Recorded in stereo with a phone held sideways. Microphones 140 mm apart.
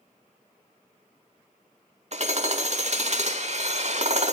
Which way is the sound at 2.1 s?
55° right (ahead or behind).